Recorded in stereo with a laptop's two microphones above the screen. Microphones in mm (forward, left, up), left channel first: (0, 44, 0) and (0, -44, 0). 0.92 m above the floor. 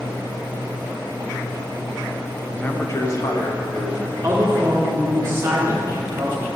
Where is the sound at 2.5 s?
15° left (ahead or behind), 0.6 m; by 4.1 s 50° left (ahead or behind), 1.5 m.